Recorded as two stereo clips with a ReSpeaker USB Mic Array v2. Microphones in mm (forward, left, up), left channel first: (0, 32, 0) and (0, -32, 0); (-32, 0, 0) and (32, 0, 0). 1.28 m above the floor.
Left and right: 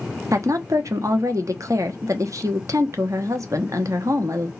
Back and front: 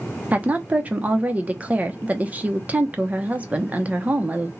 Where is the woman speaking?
65° right, 1.0 m.